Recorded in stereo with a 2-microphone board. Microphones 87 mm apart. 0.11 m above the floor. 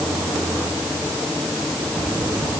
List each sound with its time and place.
Only background noise.